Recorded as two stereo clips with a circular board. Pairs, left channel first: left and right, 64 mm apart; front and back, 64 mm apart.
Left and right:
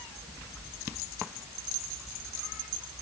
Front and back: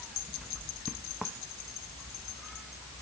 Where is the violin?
No violin in this recording.